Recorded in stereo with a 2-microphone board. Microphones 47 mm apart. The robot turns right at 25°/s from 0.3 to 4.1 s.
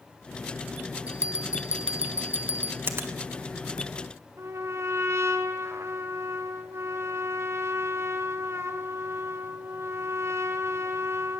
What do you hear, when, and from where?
1.1 s a bell: 80° left, 0.8 m; by 2.8 s 55° left (ahead or behind), 0.8 m
2.9 s a finger snap: 50° right (ahead or behind), 1.7 m; by 3.1 s 55° right (ahead or behind), 1.7 m
4.4 s a trumpet: 65° right (ahead or behind), 1.3 m